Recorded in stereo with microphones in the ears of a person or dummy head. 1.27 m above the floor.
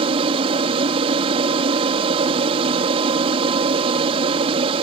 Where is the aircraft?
30° right (ahead or behind).